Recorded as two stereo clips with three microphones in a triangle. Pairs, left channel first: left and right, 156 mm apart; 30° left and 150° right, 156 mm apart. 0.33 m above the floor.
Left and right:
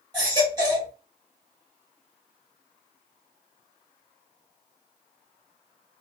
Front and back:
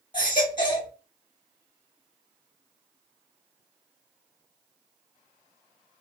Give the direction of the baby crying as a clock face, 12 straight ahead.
1 o'clock.